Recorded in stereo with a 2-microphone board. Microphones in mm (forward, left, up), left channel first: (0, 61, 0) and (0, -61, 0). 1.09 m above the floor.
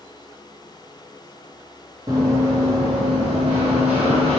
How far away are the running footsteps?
About 1.4 m.